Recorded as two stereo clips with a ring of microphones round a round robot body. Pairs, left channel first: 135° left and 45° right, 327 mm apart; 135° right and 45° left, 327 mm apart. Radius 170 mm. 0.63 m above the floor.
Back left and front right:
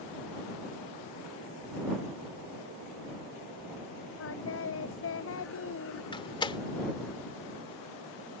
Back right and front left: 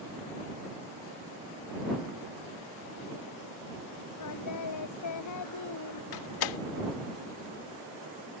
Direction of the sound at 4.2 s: 175° right.